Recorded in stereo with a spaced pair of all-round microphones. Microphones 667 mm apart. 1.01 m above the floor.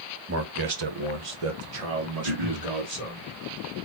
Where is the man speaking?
20° right (ahead or behind), 0.7 m; by 3.2 s 70° right (ahead or behind), 2 m.